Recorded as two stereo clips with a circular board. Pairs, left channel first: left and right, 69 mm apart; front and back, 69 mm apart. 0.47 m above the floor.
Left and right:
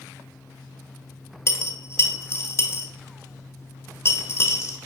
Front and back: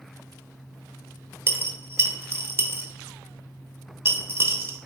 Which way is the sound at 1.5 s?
130° left.